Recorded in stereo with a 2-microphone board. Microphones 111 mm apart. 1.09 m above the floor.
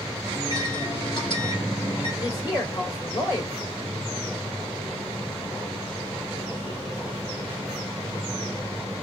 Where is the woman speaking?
40° left (ahead or behind), 3 m.